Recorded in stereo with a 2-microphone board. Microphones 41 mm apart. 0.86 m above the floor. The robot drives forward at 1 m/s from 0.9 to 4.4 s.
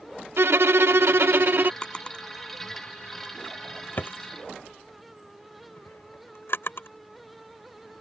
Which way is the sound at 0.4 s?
75° right (ahead or behind).